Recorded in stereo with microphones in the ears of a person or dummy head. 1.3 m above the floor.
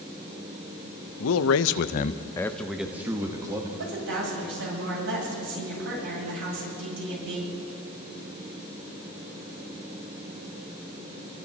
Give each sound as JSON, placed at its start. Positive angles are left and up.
{"t": 1.2, "sound": "a man speaking", "side_deg": 75, "distance_m": 1.0}
{"t": 3.8, "sound": "a woman speaking", "side_deg": -75, "distance_m": 9.0}